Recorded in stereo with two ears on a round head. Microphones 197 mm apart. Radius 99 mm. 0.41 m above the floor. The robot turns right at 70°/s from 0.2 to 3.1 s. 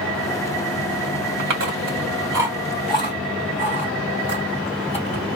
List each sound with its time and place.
1.4 s chewing: 65° right (ahead or behind), 2.5 m; by 5.4 s 30° left (ahead or behind), 2.5 m